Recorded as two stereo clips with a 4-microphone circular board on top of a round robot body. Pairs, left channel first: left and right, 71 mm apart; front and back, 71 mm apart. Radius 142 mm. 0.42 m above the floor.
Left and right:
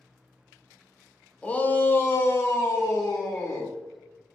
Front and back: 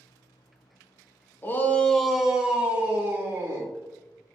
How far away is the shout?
About 0.9 m.